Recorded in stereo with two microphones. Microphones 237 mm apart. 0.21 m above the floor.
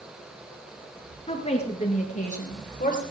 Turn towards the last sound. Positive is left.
turn(degrees=35)  # may be behind; listen again after turning